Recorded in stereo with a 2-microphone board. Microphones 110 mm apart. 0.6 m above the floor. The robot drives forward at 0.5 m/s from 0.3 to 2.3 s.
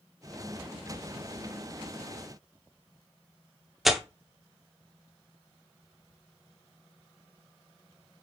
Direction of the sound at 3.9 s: Centre (ahead or behind).